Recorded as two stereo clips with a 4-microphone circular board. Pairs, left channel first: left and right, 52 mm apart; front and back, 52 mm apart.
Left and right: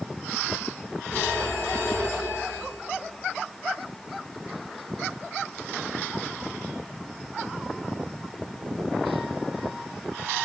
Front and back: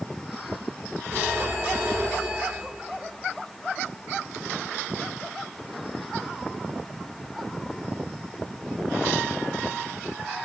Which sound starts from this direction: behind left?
A phone ringing, at 1.1 s.